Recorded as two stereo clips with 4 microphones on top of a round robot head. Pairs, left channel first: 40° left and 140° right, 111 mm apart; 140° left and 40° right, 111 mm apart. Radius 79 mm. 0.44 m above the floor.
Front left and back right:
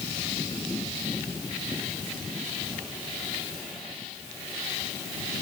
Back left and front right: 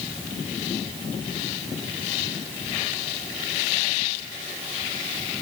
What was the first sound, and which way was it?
Only background noise.